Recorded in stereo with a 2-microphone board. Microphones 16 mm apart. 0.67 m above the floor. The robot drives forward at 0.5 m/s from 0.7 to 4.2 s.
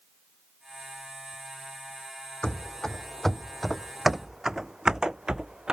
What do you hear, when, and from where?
2.4 s running footsteps: 45° left (ahead or behind); by 5.7 s 60° right (ahead or behind)